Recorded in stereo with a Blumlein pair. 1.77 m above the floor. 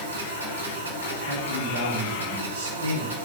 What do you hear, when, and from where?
0.0 s a machine running: 70° right, 1.6 m
1.2 s a man speaking: 65° right, 1.5 m